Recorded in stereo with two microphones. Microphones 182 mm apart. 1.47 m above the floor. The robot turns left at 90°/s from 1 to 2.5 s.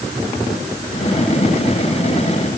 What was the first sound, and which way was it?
Only background noise.